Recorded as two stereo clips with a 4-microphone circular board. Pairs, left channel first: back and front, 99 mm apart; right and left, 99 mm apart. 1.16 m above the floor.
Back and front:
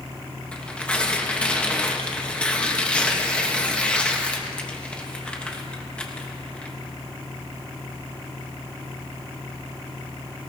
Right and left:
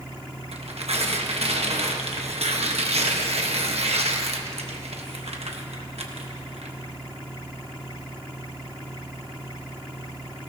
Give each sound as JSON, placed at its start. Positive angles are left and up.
{"t": 0.5, "sound": "tearing paper", "azimuth_deg": 100, "distance_m": 1.2}